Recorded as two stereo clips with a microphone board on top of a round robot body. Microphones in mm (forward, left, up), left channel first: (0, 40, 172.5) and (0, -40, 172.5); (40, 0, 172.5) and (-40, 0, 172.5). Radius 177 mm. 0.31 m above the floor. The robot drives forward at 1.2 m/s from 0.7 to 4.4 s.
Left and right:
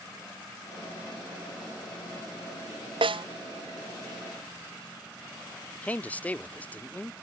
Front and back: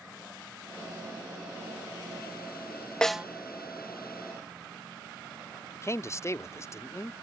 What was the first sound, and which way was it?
A snare drum, 80° right.